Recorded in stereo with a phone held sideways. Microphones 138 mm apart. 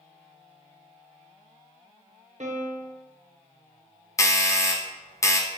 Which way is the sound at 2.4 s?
60° right (ahead or behind).